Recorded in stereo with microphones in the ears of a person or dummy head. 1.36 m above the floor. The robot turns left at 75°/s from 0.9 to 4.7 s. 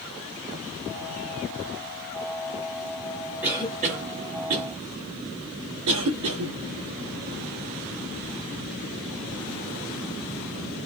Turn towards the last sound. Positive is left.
turn(degrees=-75)  # may be behind; listen again after turning